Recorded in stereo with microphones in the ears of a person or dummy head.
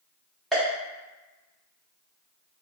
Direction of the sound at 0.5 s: Centre (ahead or behind).